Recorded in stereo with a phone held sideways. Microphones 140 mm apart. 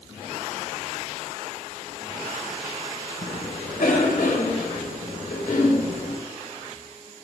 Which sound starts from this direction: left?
A cough, at 3.2 s.